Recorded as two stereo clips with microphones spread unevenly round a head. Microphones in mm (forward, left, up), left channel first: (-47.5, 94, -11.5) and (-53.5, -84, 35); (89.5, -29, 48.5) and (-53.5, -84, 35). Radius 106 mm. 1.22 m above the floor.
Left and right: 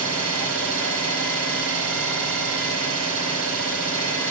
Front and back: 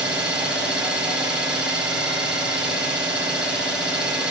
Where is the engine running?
75° right, 5 m.